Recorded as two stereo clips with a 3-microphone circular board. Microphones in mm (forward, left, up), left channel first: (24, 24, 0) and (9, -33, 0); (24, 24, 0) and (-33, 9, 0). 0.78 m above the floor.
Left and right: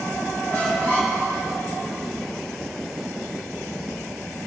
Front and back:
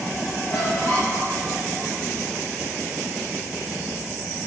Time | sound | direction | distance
0.5 | a squeak | 20° left | 5 m